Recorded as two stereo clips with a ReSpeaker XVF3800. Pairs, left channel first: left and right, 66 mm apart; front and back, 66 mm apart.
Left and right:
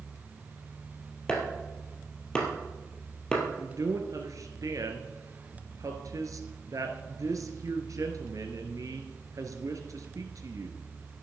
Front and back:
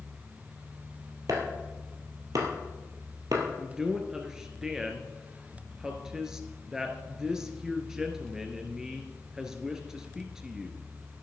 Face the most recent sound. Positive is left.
turn(degrees=-100)